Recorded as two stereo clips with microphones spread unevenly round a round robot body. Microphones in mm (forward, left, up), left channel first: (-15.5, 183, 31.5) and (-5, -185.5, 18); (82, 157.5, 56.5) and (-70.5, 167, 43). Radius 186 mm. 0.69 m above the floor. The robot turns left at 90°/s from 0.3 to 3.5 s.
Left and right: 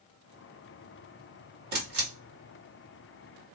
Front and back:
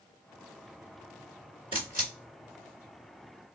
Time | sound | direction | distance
1.7 | a camera shutter | 55° right | 1.9 m